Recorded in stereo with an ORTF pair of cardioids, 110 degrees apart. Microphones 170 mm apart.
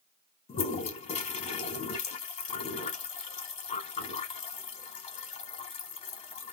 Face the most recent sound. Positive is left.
turn(degrees=45)